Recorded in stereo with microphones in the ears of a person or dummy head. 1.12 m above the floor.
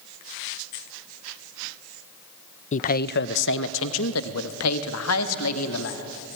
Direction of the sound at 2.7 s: 40° left (ahead or behind).